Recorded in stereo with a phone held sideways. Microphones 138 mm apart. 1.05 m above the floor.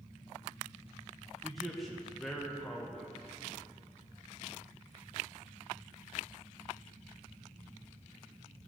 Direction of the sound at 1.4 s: Centre (ahead or behind).